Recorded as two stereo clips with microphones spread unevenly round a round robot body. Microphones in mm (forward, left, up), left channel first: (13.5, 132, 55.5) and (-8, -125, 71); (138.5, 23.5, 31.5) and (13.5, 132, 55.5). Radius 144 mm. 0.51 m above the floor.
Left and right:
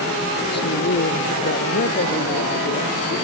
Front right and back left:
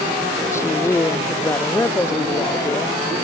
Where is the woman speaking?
35° left.